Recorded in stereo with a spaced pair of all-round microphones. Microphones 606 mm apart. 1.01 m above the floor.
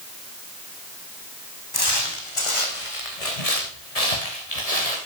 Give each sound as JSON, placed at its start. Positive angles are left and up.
{"t": 1.7, "sound": "footsteps", "side_deg": 35, "distance_m": 3.0}